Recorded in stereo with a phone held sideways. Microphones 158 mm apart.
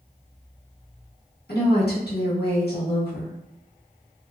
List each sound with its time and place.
1.5 s a woman speaking: 80° left, 1.1 m